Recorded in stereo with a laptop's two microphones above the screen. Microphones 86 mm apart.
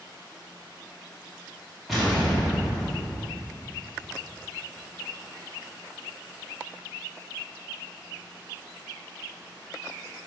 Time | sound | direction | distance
1.9 | an explosion | centre (ahead or behind) | 1.3 m